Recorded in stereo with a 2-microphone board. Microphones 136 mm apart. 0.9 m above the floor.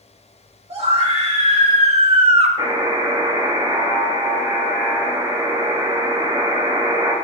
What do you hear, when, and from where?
0.7 s a scream: 50° right (ahead or behind), 2 m
2.6 s a buzzer: 30° right (ahead or behind), 1.6 m